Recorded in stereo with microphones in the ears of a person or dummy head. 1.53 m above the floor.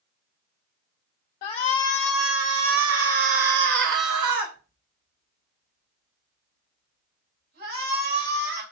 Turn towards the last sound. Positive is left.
turn(degrees=-65)  # may be behind; listen again after turning